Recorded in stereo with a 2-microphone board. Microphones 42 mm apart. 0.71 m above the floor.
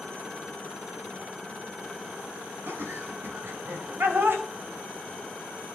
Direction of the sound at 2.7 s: 65° right (ahead or behind).